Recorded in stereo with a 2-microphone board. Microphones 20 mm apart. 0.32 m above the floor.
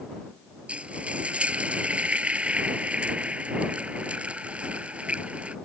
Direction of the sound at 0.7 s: 80° right.